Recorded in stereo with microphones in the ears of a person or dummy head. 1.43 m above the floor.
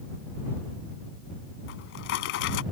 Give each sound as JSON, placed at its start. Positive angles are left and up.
{"t": 1.7, "sound": "a drawer", "side_deg": 50}